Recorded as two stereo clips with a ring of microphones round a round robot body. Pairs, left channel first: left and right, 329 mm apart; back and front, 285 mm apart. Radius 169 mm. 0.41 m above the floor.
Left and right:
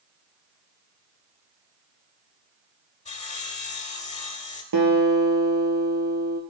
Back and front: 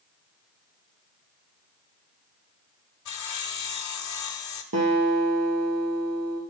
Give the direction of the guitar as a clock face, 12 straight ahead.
2 o'clock.